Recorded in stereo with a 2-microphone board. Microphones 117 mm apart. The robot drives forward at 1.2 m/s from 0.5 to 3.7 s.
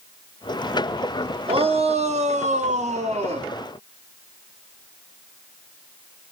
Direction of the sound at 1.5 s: 50° right (ahead or behind).